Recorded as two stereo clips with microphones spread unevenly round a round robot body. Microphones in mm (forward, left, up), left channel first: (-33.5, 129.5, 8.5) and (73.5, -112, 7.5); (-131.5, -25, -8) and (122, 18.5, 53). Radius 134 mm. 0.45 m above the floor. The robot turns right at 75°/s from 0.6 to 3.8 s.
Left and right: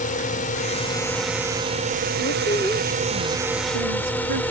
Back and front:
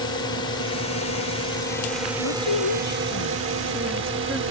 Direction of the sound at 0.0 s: 155° left.